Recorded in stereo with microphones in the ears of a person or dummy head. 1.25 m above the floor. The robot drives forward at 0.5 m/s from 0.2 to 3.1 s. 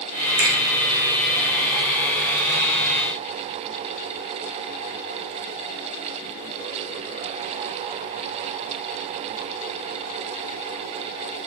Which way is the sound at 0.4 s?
65° right (ahead or behind).